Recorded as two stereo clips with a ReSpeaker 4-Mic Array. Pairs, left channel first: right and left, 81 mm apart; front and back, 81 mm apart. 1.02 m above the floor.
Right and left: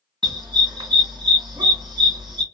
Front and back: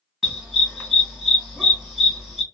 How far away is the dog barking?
About 2 m.